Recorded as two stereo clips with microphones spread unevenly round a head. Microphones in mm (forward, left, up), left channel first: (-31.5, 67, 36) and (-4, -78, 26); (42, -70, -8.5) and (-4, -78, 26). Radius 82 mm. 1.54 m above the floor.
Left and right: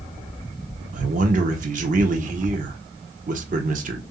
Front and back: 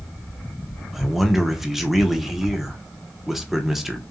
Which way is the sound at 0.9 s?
110° right.